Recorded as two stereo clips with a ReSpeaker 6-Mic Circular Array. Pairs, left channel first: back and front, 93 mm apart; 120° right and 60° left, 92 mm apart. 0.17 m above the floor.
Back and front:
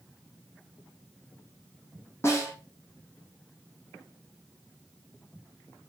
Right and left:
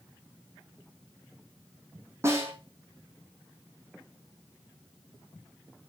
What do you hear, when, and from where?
2.2 s a snare drum: 120° left, 4.5 m